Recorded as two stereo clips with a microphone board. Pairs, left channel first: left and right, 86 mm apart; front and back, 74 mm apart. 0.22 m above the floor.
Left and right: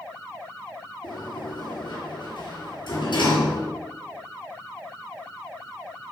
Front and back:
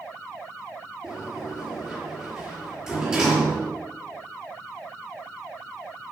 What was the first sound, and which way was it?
A sliding door, 105° left.